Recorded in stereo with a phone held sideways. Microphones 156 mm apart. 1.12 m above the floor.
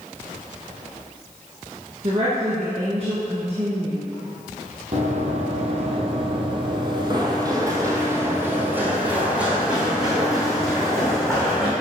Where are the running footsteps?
50° right (ahead or behind), 1.7 m; by 11.7 s 5° left (ahead or behind), 3.5 m.